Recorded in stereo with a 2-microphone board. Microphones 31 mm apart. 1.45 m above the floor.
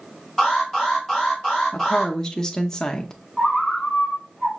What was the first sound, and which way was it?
An alarm, 15° left (ahead or behind).